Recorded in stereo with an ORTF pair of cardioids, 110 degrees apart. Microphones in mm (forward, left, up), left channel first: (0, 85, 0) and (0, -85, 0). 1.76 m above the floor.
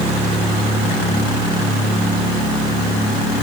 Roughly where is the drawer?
No drawer in this recording.